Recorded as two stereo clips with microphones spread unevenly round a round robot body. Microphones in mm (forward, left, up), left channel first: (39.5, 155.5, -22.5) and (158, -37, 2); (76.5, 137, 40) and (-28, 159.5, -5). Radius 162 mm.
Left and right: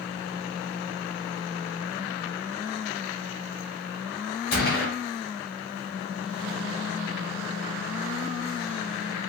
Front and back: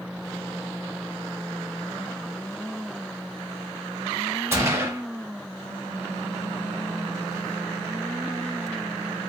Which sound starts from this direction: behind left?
A gunshot, at 4.5 s.